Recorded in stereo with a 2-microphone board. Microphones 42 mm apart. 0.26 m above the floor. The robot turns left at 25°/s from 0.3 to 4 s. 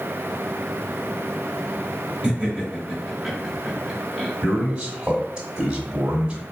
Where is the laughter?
25° right (ahead or behind), 1.5 m; by 4.3 s 5° right (ahead or behind), 1.5 m.